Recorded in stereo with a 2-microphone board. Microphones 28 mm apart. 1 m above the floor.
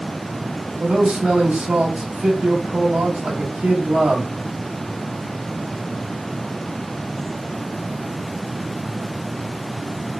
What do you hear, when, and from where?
0.8 s a man speaking: 85° right, 1.8 m